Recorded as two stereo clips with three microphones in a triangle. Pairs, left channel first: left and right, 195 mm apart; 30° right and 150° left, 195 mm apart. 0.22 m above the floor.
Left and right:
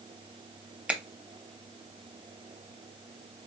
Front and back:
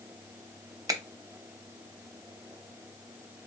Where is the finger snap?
165° right, 0.9 m.